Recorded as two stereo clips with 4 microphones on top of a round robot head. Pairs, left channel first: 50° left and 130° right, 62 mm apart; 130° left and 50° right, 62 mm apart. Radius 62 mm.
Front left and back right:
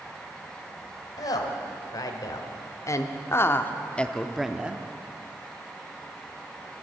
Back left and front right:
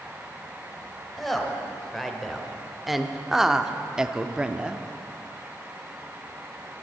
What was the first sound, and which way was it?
A woman speaking, 45° left.